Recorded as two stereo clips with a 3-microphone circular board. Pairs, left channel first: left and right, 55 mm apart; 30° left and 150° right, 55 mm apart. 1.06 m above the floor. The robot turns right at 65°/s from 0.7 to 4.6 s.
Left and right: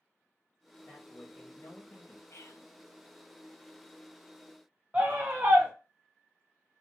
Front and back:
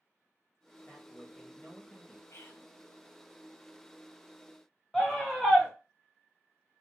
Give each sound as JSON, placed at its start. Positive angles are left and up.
{"t": 0.9, "sound": "a man speaking", "azimuth_deg": 60, "distance_m": 1.4}
{"t": 2.3, "sound": "whispering", "azimuth_deg": 55, "distance_m": 0.6}
{"t": 4.9, "sound": "a scream", "azimuth_deg": -50, "distance_m": 0.5}